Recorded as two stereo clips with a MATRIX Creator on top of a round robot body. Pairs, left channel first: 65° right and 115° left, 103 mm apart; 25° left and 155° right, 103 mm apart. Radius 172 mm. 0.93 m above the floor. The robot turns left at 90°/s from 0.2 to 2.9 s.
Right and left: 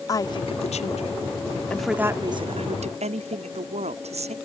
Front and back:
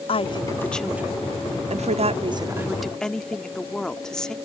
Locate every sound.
0.1 s a woman speaking: 10° right; by 4.3 s 105° left